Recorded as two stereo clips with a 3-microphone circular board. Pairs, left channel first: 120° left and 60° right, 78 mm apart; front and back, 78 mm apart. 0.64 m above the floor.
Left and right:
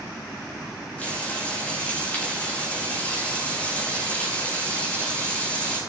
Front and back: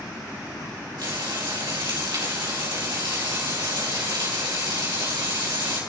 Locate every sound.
1.0 s frying: 170° right, 4.5 m